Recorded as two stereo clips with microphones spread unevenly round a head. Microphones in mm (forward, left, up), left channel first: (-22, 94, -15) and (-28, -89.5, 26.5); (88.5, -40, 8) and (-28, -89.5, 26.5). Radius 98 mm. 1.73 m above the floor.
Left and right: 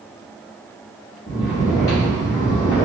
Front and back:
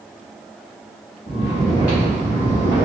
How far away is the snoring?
About 1.3 m.